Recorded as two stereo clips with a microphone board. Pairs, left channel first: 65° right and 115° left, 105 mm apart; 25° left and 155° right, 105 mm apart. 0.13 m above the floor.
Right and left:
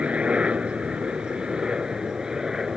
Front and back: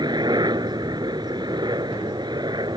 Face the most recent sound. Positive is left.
turn(degrees=-165)